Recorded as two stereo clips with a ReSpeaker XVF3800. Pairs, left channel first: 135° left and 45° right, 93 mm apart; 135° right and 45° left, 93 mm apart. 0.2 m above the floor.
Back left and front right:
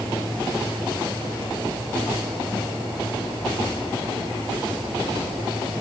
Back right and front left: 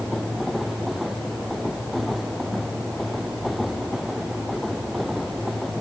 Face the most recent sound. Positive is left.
No sound to turn to.